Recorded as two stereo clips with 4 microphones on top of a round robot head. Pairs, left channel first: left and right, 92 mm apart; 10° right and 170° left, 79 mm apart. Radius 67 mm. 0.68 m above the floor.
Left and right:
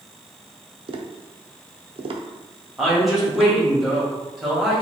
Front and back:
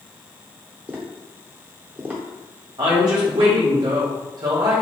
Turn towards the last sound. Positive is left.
turn(degrees=-175)